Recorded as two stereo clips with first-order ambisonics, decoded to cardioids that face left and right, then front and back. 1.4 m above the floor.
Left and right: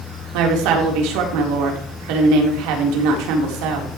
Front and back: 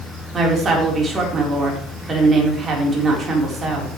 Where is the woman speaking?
110° right, 3.5 m.